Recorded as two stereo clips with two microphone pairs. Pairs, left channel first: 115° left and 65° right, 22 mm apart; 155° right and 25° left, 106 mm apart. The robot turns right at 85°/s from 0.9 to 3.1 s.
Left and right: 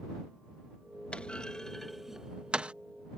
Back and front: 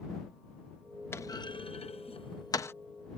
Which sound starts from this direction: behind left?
A clunk, at 1.1 s.